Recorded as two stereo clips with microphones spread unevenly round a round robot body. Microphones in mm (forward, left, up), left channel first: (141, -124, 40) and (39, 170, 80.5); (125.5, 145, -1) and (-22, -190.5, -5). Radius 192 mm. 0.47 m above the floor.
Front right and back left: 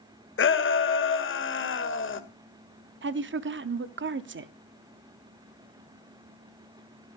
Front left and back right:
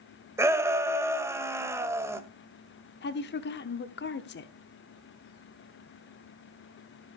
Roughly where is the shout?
Ahead right.